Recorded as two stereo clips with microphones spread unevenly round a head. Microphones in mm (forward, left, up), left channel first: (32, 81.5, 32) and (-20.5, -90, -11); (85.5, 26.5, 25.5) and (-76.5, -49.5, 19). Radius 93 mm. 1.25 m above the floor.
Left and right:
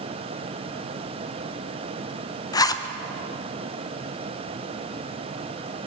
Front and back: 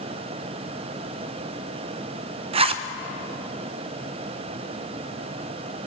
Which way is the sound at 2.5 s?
145° left.